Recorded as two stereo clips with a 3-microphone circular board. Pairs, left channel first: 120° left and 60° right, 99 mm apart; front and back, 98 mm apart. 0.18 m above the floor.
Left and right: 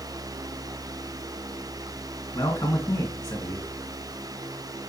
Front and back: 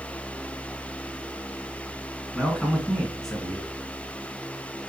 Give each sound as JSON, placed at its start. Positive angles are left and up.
{"t": 2.3, "sound": "a man speaking", "azimuth_deg": 85, "distance_m": 2.0}